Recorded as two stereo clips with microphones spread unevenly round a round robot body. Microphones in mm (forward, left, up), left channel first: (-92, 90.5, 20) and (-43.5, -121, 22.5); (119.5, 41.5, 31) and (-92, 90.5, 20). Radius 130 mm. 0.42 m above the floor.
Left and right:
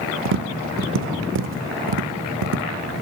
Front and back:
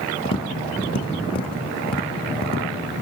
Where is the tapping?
80° right, 0.5 m.